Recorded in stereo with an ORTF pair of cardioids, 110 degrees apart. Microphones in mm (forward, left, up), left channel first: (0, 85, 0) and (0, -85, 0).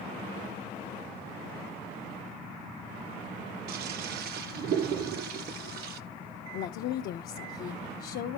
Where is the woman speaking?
65° left, 0.5 m.